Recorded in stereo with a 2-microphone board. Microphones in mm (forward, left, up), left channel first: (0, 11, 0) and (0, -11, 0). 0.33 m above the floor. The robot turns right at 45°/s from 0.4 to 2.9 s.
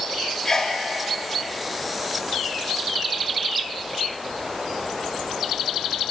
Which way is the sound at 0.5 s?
25° left (ahead or behind).